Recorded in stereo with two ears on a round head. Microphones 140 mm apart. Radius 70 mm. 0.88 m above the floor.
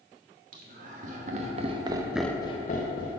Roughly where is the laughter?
Right.